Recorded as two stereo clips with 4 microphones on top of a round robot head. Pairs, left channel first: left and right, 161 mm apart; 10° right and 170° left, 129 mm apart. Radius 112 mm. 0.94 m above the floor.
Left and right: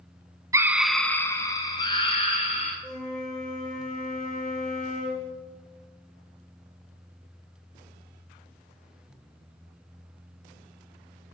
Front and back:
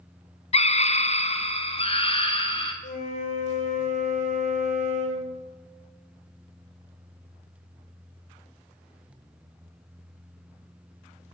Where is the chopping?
I don't hear chopping.